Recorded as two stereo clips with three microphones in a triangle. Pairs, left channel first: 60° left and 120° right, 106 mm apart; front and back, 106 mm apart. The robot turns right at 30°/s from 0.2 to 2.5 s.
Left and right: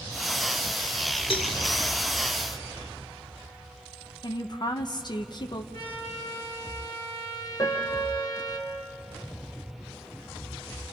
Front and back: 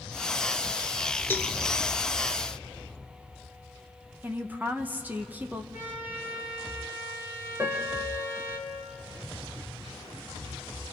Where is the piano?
115° left, 2.5 m.